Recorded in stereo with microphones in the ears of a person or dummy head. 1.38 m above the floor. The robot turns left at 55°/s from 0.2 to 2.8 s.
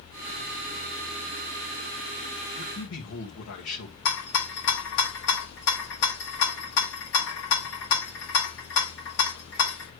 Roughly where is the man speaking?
Left.